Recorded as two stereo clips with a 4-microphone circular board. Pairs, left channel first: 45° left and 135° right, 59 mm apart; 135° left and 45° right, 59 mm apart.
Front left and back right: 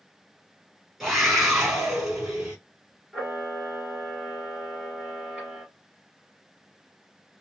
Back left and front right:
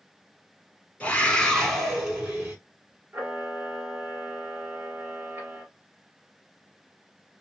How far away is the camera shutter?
About 2.0 m.